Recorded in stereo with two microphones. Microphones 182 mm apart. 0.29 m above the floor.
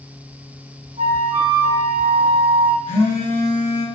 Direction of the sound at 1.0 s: 25° right (ahead or behind).